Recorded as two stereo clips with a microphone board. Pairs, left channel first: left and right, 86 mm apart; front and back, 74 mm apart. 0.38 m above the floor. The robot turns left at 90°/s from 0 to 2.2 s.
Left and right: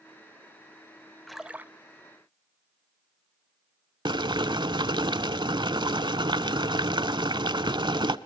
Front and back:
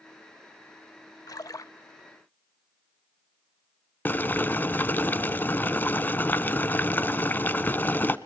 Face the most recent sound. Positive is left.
turn(degrees=-65)